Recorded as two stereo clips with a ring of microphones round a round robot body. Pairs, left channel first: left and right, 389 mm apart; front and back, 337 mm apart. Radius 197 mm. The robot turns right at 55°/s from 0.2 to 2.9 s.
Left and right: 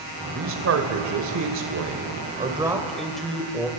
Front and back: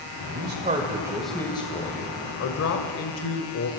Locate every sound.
0.3 s a man speaking: 140° right, 1.7 m; by 3.7 s straight ahead, 1.7 m